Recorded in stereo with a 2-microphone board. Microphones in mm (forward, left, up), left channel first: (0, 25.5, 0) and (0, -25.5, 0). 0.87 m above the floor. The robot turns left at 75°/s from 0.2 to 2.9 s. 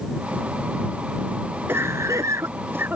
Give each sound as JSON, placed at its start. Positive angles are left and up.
{"t": 1.7, "sound": "a cough", "side_deg": -50}